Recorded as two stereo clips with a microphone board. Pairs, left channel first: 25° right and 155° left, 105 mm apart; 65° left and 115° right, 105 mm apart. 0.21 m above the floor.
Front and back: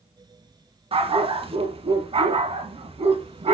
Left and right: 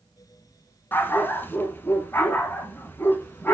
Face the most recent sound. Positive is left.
turn(degrees=140)